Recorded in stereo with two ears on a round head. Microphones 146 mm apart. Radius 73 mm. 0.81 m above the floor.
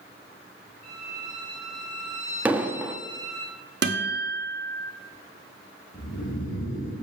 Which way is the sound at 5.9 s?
50° left (ahead or behind).